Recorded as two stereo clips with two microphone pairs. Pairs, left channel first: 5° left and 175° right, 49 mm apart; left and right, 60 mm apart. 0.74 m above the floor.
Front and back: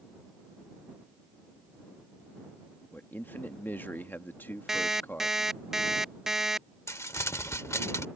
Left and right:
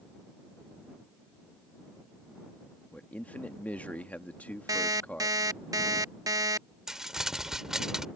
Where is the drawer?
No drawer in this recording.